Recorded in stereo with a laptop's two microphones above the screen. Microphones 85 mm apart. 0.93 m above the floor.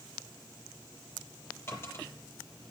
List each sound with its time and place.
1.7 s a dropped coin: 30° left (ahead or behind), 7 m